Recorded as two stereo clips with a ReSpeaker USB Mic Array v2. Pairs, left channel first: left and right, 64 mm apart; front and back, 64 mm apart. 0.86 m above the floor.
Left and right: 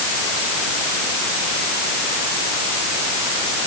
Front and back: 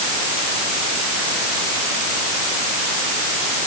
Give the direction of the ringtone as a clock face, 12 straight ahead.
No ringtone in this recording.